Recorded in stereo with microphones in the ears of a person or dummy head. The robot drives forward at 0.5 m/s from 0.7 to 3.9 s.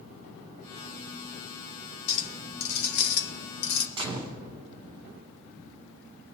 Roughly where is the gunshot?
Right.